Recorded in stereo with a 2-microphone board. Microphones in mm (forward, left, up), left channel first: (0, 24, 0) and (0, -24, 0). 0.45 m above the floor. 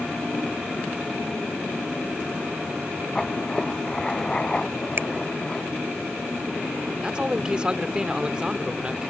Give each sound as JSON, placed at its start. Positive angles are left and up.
{"t": 3.1, "sound": "writing", "side_deg": 15}
{"t": 5.0, "sound": "a finger snap", "side_deg": -60}
{"t": 7.0, "sound": "a man speaking", "side_deg": -20}